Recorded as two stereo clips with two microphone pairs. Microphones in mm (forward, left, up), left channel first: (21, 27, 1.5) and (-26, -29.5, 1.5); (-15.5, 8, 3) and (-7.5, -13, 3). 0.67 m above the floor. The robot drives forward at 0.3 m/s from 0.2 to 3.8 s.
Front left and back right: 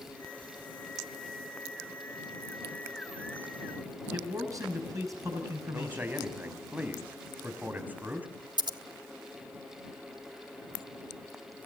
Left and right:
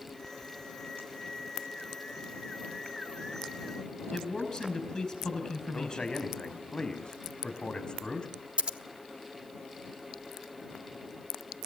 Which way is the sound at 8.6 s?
115° right.